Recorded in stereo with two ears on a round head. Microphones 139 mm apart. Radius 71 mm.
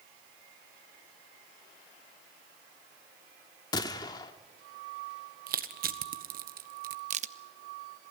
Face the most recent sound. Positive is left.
turn(degrees=-45)  # may be behind; listen again after turning